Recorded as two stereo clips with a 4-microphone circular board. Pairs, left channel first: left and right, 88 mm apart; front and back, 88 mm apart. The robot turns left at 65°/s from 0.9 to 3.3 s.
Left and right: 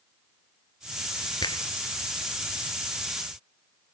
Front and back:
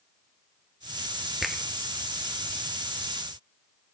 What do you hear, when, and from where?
1.4 s a finger snap: 95° left, 1.5 m; by 1.6 s 80° left, 1.5 m